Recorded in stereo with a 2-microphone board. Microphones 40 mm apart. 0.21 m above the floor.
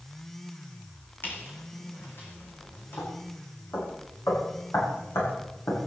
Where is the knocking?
75° left (ahead or behind), 9 m.